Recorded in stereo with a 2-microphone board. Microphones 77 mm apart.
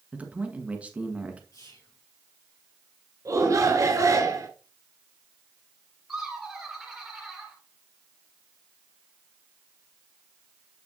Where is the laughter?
5° right (ahead or behind), 2.5 m.